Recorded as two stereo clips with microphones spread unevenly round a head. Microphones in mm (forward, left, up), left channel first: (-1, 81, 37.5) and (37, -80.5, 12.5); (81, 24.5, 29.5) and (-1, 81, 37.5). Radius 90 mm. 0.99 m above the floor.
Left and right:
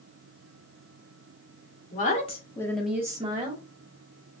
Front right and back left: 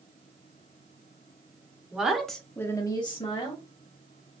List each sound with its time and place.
1.9 s a woman speaking: 65° left, 1.3 m; by 3.6 s 40° right, 1.3 m